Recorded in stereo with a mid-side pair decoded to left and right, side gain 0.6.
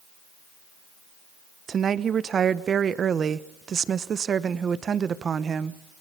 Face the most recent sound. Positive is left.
turn(degrees=-40)